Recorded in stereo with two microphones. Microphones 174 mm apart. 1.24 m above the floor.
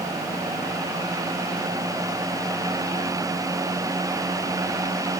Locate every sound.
Only background noise.